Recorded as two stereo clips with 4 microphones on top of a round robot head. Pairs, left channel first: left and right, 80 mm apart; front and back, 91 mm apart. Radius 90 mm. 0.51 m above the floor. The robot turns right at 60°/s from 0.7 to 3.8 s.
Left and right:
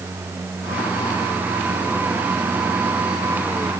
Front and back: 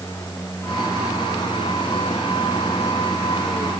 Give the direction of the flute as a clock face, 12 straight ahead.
I don't hear a flute.